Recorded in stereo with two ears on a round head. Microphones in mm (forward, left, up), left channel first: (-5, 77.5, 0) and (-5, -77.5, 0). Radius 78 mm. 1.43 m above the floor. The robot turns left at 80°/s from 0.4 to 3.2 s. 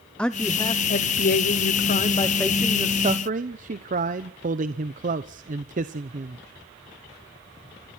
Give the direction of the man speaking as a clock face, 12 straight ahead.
6 o'clock.